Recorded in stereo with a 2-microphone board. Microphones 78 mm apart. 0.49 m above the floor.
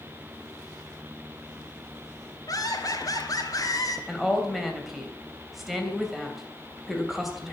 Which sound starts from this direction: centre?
A woman speaking, at 4.1 s.